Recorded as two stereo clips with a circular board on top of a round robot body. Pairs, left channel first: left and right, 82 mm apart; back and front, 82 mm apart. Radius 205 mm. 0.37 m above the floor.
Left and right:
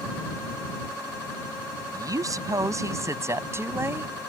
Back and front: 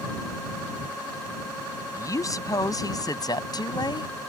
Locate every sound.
1.9 s a woman speaking: 130° right; by 4.3 s 155° right